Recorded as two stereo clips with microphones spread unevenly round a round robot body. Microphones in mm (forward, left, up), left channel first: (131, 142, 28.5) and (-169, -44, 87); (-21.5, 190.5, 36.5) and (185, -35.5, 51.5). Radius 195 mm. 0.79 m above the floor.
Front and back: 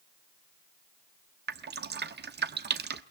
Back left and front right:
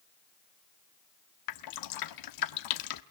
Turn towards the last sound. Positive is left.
turn(degrees=145)